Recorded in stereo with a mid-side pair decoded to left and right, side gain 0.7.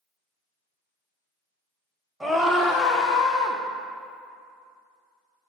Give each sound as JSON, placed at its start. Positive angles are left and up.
{"t": 2.2, "sound": "a scream", "azimuth_deg": 0, "distance_m": 0.6}